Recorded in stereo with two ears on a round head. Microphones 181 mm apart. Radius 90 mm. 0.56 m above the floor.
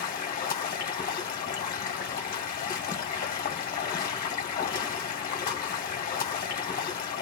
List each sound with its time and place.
0.0 s running water: 45° left (ahead or behind), 1.2 m